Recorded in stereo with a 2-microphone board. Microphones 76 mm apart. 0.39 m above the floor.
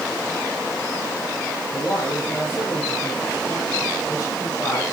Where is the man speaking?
30° left (ahead or behind), 9.5 m.